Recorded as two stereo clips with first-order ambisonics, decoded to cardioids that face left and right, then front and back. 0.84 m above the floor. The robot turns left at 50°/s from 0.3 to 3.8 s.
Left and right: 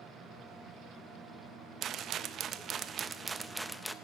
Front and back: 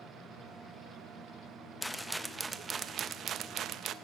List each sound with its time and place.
1.8 s a rattle: 75° right, 0.6 m; by 4.0 s 175° right, 0.6 m